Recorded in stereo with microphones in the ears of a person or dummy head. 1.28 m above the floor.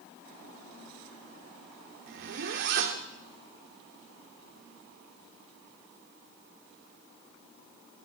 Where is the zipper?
50° right (ahead or behind), 1.2 m.